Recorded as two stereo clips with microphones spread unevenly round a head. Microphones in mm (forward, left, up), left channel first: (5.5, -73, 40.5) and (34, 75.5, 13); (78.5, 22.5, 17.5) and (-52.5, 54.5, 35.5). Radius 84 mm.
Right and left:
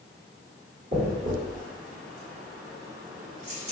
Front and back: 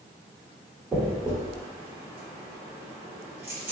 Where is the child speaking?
No child speaking in this recording.